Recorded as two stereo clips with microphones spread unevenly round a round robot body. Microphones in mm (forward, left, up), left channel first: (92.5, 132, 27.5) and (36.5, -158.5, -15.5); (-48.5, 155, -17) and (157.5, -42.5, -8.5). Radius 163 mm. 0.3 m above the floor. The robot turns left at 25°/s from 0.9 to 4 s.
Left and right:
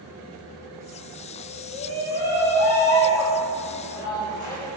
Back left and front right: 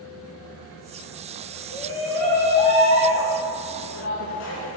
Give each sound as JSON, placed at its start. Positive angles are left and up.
{"t": 1.7, "sound": "a shout", "azimuth_deg": -125, "distance_m": 2.0}